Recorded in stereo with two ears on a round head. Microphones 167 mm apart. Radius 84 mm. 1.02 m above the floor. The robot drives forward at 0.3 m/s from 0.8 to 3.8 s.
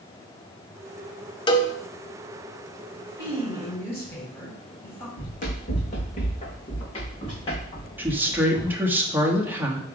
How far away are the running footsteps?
About 3 m.